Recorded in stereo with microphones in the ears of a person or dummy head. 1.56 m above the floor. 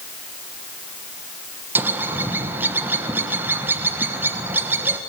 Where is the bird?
15° right (ahead or behind), 1.4 m.